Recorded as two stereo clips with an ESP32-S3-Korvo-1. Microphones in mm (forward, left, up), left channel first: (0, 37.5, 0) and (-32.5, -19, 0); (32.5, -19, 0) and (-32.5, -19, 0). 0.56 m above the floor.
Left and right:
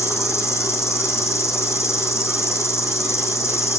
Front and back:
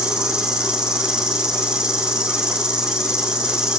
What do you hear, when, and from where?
0.0 s an insect: 105° left, 4.5 m